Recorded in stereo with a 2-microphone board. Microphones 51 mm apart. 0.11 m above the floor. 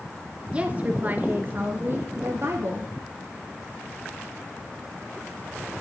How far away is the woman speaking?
About 1.3 m.